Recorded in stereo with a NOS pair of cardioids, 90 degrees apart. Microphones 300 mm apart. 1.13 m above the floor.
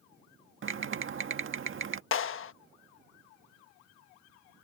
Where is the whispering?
I don't hear whispering.